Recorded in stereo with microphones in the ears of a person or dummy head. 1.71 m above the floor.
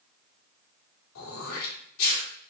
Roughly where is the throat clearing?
Left.